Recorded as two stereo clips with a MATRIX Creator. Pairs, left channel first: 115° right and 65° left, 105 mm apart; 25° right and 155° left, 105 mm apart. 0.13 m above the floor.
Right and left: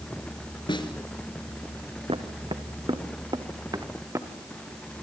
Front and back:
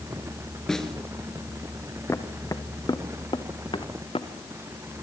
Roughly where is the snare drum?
Right.